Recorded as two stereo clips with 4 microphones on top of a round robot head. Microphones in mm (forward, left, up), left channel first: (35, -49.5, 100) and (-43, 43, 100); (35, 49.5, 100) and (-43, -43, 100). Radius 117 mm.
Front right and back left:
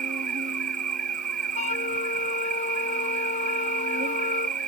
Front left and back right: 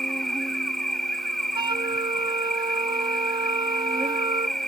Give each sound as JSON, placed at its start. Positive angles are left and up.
{"t": 0.0, "sound": "an insect", "azimuth_deg": 135}
{"t": 1.6, "sound": "a flute", "azimuth_deg": -75}